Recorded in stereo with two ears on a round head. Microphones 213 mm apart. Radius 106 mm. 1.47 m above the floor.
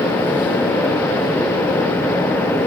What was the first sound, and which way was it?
Only background noise.